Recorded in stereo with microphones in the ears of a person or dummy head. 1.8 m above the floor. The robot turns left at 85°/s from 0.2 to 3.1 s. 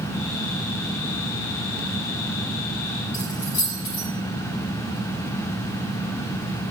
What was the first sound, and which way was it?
Keys jangling, 70° left (ahead or behind).